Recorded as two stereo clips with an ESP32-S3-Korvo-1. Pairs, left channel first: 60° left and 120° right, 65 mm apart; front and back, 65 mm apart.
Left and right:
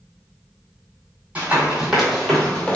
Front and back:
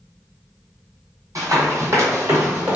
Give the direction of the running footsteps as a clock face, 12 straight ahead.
6 o'clock.